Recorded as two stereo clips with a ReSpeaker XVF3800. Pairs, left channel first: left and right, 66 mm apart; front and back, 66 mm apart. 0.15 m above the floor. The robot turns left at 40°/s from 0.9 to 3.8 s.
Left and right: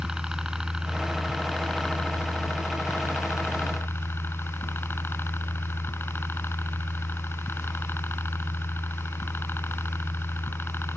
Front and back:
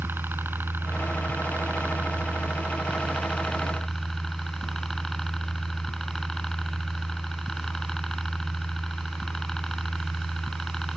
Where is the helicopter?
165° right; by 11.0 s 80° left.